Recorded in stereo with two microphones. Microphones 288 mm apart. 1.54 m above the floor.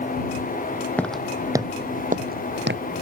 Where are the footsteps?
5° left (ahead or behind); by 2.8 s 40° right (ahead or behind).